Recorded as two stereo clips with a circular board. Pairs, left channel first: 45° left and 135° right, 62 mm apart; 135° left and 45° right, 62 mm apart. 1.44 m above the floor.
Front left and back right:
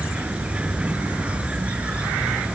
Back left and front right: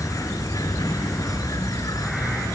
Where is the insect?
155° left.